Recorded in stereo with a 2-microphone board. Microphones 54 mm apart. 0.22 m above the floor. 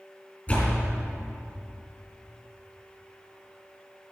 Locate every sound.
0.5 s a door slam: 25° left (ahead or behind), 3.5 m